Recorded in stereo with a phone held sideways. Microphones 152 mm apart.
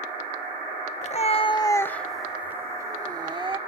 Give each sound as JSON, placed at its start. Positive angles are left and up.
{"t": 1.0, "sound": "a cat meowing", "side_deg": 50, "distance_m": 0.7}